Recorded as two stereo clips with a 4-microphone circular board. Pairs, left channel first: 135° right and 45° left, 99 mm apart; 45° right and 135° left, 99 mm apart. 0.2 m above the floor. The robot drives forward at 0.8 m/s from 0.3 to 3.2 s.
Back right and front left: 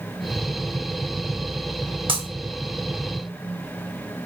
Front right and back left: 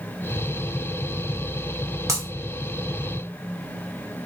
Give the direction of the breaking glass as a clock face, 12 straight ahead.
10 o'clock.